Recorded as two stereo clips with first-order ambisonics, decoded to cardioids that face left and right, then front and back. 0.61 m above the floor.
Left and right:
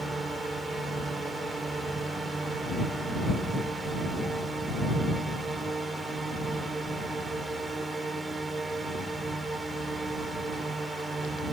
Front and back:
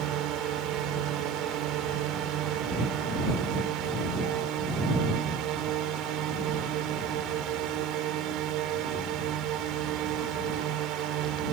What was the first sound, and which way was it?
A drone, 165° right.